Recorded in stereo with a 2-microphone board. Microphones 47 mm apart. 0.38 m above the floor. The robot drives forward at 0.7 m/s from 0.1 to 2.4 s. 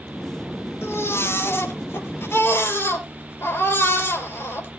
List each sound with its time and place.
0.8 s a baby crying: 65° left (ahead or behind), 4 m; by 4.7 s 50° left (ahead or behind), 4.5 m